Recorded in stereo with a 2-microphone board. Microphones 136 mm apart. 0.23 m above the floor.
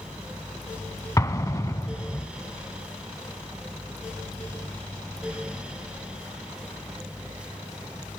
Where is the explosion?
25° left (ahead or behind), 0.7 m.